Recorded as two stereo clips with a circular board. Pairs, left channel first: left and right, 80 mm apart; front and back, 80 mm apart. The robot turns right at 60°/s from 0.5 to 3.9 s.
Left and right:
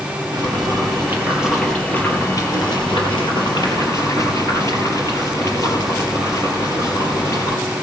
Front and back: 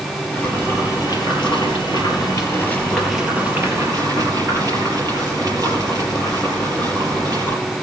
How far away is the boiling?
About 4 m.